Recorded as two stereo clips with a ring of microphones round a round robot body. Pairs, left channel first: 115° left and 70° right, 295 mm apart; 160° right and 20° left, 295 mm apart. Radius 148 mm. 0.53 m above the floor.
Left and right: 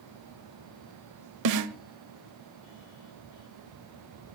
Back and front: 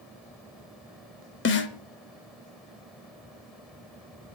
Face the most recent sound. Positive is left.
turn(degrees=-100)